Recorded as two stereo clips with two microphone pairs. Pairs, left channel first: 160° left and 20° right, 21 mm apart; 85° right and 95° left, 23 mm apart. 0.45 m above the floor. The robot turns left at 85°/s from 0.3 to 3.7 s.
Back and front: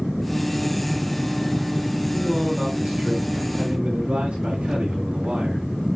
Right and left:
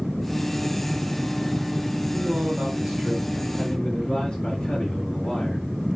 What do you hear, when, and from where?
2.1 s a man speaking: 105° left, 7.5 m; by 5.7 s 30° right, 7.5 m